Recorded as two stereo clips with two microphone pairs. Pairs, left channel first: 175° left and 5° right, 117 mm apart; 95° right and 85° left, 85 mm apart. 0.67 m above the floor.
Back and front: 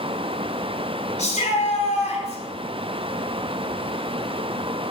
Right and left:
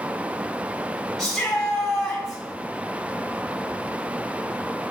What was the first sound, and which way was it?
A shout, straight behind.